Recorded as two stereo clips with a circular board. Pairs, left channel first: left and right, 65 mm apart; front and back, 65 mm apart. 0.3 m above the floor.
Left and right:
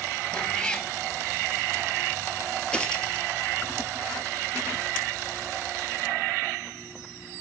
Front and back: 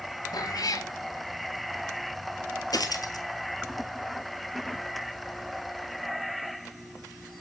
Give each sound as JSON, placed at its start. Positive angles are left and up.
{"t": 0.3, "sound": "a cat meowing", "azimuth_deg": 15, "distance_m": 1.0}
{"t": 2.7, "sound": "a dropped coin", "azimuth_deg": 15, "distance_m": 1.8}